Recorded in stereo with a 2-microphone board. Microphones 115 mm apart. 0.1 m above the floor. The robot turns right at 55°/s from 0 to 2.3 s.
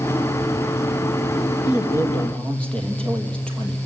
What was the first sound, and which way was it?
A man speaking, 135° left.